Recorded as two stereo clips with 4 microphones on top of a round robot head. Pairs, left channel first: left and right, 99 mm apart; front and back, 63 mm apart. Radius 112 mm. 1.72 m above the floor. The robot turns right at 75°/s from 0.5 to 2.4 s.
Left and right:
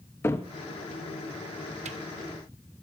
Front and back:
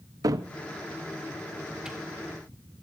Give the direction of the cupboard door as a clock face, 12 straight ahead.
7 o'clock.